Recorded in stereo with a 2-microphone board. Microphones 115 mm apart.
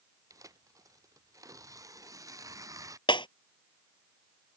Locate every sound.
0.3 s tearing paper: 30° right (ahead or behind)
3.1 s breaking glass: 45° left (ahead or behind)